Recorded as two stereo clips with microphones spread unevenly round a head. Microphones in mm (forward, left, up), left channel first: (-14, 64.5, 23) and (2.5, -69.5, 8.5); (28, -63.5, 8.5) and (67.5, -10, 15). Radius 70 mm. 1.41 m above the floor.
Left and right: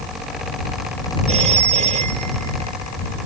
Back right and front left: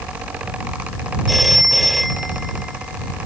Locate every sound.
1.3 s a phone ringing: 35° right